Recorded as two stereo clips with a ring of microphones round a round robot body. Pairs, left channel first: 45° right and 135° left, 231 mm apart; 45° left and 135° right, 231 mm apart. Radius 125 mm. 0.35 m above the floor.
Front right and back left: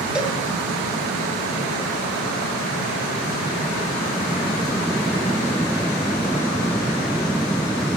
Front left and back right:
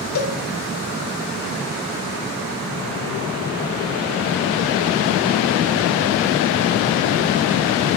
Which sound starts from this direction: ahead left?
A cowbell, at 0.1 s.